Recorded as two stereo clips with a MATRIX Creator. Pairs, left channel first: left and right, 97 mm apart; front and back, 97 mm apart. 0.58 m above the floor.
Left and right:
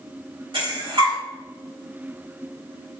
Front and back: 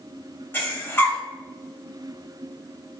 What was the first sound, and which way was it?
Breathing, 65° right.